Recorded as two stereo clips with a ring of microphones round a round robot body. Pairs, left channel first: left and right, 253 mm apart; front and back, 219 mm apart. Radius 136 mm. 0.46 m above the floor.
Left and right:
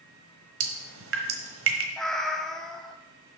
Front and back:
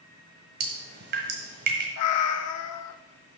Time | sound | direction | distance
0.6 | dripping | 130° right | 1.2 m
2.0 | a cat meowing | straight ahead | 0.5 m